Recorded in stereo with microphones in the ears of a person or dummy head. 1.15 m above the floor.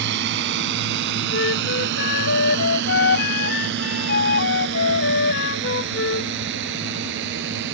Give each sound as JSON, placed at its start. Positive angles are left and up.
{"t": 0.0, "sound": "a drone", "side_deg": -65}
{"t": 1.3, "sound": "a flute", "side_deg": 65}